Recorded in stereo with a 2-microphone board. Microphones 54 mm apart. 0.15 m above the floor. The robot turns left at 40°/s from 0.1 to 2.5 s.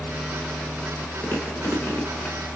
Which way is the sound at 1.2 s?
30° left (ahead or behind).